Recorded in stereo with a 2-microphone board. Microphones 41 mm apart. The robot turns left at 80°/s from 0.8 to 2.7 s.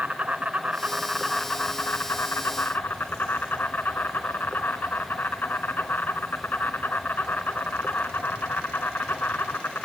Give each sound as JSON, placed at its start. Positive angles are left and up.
{"t": 0.0, "sound": "an insect", "azimuth_deg": -145, "distance_m": 1.6}